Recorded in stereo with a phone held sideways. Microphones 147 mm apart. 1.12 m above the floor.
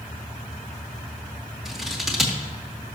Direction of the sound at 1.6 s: Centre (ahead or behind).